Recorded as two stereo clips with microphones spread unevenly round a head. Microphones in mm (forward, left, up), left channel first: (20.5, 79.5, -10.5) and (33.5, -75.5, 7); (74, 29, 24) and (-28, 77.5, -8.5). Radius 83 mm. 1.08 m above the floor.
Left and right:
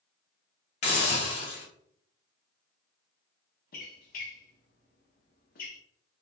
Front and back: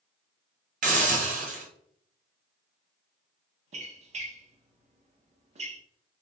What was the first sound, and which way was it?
A hiss, 150° left.